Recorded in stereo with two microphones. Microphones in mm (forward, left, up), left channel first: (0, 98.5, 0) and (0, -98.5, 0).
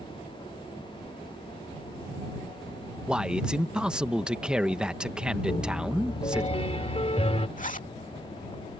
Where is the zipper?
45° left (ahead or behind).